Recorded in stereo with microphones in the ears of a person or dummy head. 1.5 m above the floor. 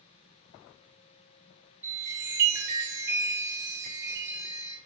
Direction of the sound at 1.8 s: 15° right (ahead or behind).